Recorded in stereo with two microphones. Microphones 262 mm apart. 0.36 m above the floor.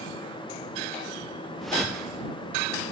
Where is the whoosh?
Centre (ahead or behind).